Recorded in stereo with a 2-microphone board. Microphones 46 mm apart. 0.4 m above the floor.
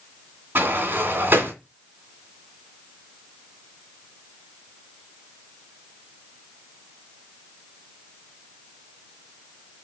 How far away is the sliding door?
About 2.5 m.